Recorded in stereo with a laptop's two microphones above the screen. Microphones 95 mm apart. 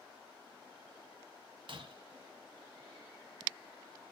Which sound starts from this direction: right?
Breaking glass, at 1.7 s.